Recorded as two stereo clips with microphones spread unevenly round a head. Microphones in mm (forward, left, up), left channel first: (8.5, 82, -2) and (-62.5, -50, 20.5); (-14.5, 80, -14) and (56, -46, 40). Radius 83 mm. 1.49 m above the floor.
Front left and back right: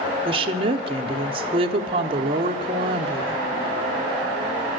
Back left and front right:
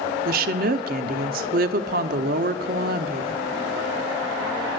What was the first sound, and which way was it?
A woman speaking, 60° right.